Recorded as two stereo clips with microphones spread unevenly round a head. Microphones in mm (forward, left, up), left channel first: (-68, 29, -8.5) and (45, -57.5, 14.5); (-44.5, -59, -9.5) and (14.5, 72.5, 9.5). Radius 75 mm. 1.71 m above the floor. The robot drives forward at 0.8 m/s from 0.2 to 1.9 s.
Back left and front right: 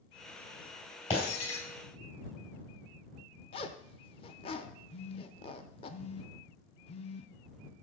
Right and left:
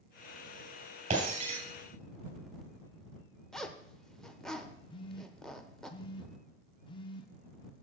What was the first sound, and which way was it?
Breaking glass, 85° left.